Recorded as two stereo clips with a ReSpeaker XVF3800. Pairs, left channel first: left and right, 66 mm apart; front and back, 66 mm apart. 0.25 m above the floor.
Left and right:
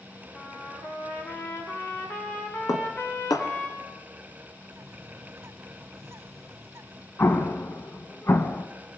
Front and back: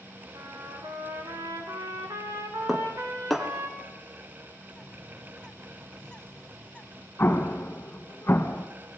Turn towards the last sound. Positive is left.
turn(degrees=50)